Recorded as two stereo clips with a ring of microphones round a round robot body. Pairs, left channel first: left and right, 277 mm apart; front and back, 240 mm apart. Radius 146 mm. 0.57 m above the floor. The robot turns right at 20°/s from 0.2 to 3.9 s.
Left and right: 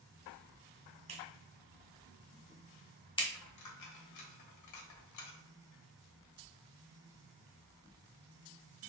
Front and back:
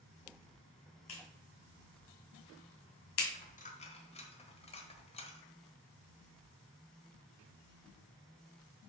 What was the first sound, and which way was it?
A clap, 25° right.